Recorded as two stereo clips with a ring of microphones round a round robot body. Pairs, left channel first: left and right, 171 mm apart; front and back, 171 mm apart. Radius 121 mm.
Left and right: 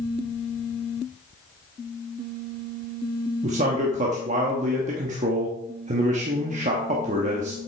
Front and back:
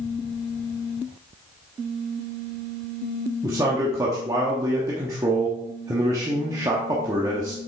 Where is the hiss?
I don't hear a hiss.